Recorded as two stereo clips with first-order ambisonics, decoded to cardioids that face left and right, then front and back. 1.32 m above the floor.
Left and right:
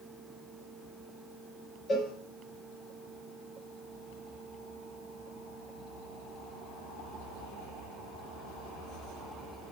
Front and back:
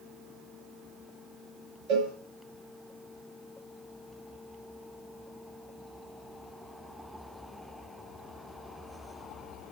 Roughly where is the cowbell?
Behind.